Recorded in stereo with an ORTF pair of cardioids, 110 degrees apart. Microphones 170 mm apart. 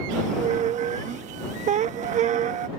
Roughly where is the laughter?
No laughter in this recording.